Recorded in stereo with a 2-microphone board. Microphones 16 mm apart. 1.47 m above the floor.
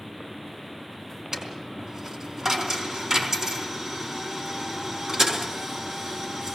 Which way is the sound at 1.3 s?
45° right (ahead or behind).